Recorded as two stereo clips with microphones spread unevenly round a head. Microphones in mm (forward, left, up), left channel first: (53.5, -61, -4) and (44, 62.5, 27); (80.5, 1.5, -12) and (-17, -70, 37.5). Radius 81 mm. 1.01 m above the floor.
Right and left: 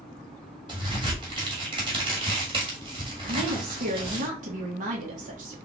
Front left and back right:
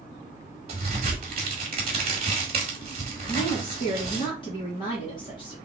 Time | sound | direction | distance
0.7 | a crack | 160° left | 1.2 m
3.3 | a woman speaking | 75° left | 1.5 m